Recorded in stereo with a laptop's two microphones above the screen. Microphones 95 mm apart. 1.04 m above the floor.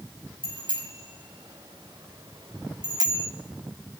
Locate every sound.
0.4 s a bicycle bell: 65° right (ahead or behind), 5.5 m; by 3.3 s 45° right (ahead or behind), 1.8 m